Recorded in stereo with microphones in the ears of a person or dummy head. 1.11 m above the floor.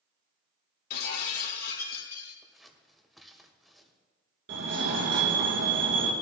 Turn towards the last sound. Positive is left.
turn(degrees=-65)  # may be behind; listen again after turning